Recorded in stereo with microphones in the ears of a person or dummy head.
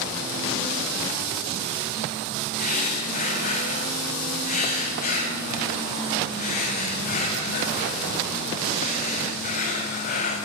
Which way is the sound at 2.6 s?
50° left (ahead or behind).